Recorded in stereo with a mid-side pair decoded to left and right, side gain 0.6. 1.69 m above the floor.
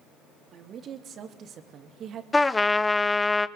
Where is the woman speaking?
50° right, 3.5 m.